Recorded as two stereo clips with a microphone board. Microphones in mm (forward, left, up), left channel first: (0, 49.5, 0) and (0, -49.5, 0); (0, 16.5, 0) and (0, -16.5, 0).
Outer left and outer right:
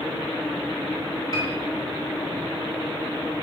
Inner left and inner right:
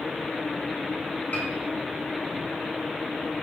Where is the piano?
40° left (ahead or behind), 4.5 m.